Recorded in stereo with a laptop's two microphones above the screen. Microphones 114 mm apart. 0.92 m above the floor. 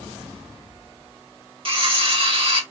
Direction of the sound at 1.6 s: 55° right (ahead or behind).